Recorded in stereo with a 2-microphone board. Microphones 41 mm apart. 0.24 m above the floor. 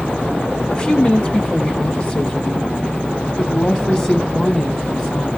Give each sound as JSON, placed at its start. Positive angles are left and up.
{"t": 0.7, "sound": "a woman speaking", "side_deg": 25, "distance_m": 1.7}